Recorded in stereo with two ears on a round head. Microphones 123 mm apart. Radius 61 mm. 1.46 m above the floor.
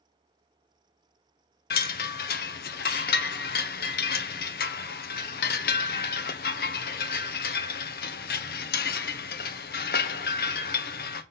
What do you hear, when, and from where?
1.7 s a chime: 75° left (ahead or behind), 0.8 m